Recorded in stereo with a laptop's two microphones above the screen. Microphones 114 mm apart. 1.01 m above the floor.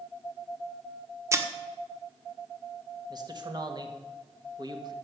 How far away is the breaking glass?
About 1.3 m.